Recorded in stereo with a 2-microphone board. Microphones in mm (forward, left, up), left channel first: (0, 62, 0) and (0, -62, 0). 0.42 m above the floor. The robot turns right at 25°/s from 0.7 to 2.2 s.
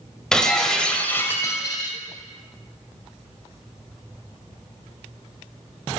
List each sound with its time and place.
0.3 s breaking glass: 5° left, 1.2 m; by 2.0 s 40° left, 1.2 m